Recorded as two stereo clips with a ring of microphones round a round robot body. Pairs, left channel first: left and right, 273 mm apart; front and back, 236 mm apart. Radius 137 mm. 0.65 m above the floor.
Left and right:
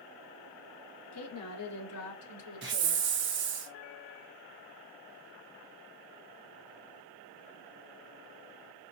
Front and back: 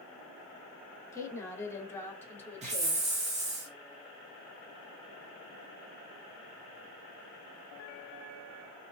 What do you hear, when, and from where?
1.1 s a woman speaking: 75° left, 1.4 m; by 3.1 s 80° left, 2.5 m
2.6 s a hiss: 125° right, 0.8 m